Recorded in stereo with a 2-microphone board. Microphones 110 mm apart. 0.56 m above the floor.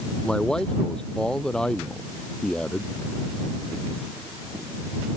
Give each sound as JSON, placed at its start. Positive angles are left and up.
{"t": 0.2, "sound": "a man speaking", "side_deg": 5}